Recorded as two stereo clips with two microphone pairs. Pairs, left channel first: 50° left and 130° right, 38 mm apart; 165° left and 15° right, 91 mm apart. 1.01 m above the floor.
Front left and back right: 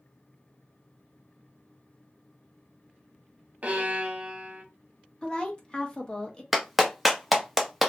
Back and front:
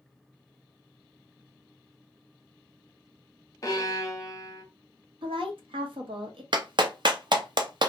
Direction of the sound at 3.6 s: 160° right.